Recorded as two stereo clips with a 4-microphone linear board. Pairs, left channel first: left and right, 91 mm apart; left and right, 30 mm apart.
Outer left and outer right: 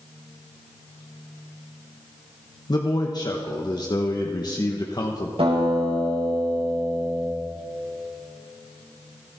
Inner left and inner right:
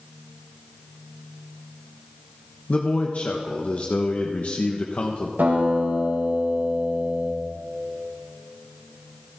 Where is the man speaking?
45° left (ahead or behind), 1.1 m.